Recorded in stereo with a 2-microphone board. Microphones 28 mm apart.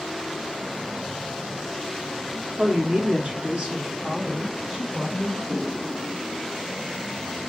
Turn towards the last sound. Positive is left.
turn(degrees=-40)  # may be behind; listen again after turning